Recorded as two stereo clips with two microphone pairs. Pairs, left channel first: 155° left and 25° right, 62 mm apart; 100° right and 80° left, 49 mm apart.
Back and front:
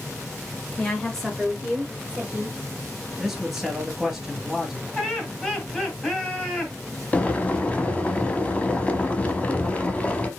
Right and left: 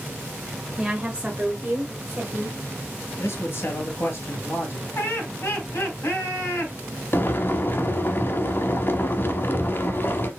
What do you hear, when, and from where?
0.8 s a woman speaking: 140° left, 1.0 m; by 2.6 s 40° left, 1.4 m
3.2 s a man speaking: 115° right, 2.5 m
5.0 s laughter: 130° right, 2.5 m
7.1 s boiling: 145° right, 0.8 m